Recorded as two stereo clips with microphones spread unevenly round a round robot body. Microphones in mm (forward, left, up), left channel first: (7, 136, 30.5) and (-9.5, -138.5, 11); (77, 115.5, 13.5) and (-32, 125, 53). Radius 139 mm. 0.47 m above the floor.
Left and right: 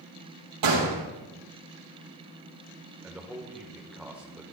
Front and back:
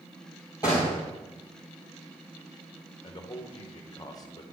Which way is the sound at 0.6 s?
80° right.